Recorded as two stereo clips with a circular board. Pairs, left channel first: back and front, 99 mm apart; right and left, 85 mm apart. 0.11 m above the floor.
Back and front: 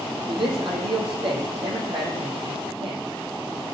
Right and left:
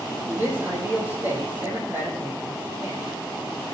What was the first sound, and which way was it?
A man speaking, 25° left.